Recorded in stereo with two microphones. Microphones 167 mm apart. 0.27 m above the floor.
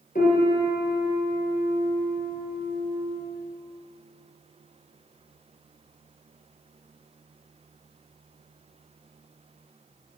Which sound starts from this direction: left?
A piano, at 0.1 s.